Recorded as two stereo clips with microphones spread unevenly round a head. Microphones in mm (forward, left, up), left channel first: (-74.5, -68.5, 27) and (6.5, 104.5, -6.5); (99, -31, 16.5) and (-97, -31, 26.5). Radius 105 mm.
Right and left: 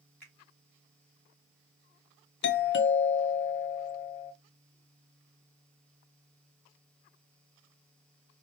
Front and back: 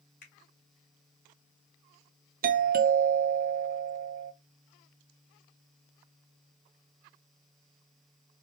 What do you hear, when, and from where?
0.2 s a finger snap: 35° right, 2.5 m
2.4 s a doorbell: 140° right, 0.6 m